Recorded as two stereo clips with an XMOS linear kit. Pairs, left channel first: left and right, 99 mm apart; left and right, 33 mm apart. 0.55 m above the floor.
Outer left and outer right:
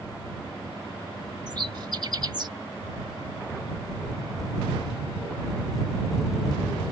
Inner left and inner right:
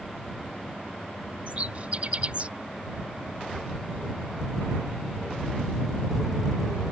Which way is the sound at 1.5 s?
45° right (ahead or behind).